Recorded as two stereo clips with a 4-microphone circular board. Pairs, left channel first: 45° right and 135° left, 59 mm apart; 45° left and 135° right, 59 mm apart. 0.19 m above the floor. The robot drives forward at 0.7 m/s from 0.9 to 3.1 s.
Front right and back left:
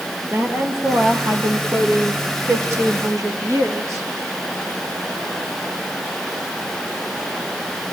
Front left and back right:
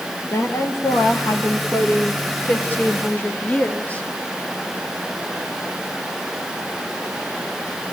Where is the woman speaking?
85° left, 3.5 m; by 4.0 s 110° left, 3.5 m.